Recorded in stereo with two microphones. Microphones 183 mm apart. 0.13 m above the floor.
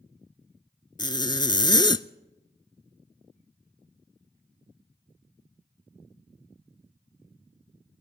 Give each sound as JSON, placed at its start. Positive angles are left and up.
{"t": 1.0, "sound": "a zipper", "side_deg": 25, "distance_m": 0.5}